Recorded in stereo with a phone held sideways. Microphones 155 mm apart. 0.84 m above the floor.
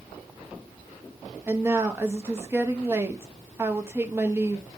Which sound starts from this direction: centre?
A woman speaking, at 1.5 s.